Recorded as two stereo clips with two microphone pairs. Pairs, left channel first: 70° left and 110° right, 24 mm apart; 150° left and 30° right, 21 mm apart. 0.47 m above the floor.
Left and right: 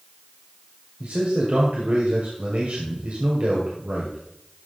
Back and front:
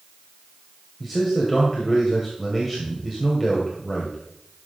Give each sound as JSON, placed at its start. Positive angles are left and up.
{"t": 1.0, "sound": "a man speaking", "azimuth_deg": -115, "distance_m": 1.8}